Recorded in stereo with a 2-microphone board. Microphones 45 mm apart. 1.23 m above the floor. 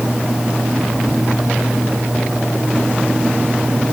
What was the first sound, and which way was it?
Only background noise.